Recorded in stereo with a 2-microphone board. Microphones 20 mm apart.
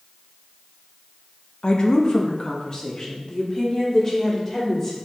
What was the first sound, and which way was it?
A woman speaking, 45° left (ahead or behind).